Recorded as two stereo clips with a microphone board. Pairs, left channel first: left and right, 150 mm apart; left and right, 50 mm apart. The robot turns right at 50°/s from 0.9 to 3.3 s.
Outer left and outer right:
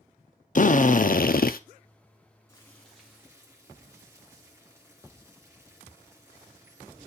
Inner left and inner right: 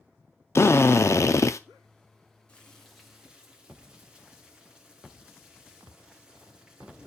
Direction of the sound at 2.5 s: 160° left.